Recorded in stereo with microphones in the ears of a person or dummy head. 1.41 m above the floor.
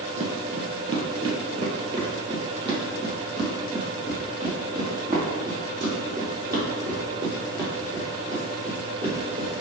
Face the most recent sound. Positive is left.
turn(degrees=-20)  # may be behind; listen again after turning